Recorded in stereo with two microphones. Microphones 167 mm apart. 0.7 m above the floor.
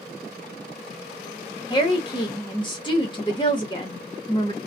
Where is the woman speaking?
25° left (ahead or behind), 0.9 m.